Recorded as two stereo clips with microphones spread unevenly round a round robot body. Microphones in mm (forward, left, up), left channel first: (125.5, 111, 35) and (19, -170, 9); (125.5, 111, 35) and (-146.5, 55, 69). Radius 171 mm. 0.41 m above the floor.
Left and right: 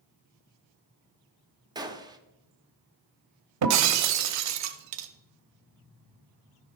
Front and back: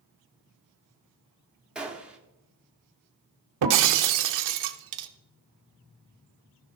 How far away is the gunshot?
About 1.0 m.